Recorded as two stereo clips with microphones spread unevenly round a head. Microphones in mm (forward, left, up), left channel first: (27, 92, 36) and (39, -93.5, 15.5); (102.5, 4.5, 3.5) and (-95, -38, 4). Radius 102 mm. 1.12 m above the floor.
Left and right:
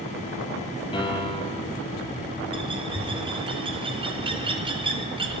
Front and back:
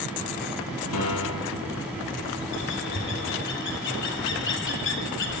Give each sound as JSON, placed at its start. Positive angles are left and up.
{"t": 0.9, "sound": "a piano", "azimuth_deg": 30, "distance_m": 6.0}
{"t": 2.5, "sound": "a bird", "azimuth_deg": -20, "distance_m": 3.0}